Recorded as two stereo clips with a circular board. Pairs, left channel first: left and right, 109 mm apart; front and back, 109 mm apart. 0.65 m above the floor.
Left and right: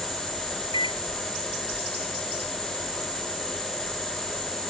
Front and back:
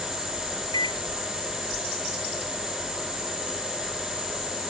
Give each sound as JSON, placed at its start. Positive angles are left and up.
{"t": 0.7, "sound": "a microwave", "azimuth_deg": 45}